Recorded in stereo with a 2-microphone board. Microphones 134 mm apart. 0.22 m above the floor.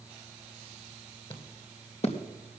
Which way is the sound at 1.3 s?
40° left (ahead or behind).